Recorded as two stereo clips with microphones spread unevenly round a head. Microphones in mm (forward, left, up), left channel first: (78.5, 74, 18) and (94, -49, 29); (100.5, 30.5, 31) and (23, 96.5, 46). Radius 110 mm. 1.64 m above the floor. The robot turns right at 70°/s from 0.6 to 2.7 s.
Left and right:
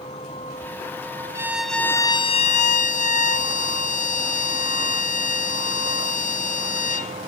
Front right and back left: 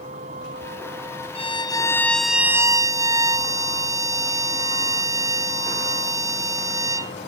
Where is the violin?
15° right; by 7.1 s 80° left.